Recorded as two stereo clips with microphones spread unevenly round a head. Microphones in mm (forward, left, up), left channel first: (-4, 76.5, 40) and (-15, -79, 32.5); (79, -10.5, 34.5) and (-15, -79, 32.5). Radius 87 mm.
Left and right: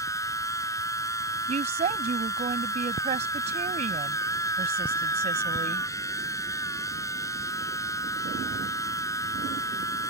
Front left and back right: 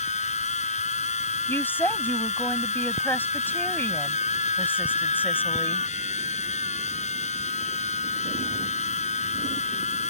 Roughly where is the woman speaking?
Ahead right.